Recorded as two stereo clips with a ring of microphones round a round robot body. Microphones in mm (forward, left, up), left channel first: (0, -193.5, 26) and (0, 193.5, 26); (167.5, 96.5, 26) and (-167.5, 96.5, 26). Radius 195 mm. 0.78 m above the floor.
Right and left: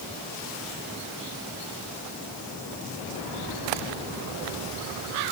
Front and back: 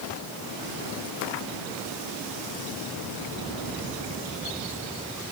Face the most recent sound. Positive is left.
No sound to turn to.